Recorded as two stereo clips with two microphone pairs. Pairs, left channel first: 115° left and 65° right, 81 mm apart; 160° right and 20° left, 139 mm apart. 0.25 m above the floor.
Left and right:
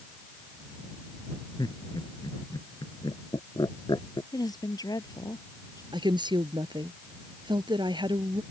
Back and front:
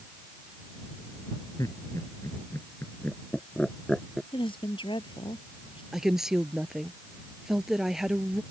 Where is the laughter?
135° left; by 4.2 s 110° left.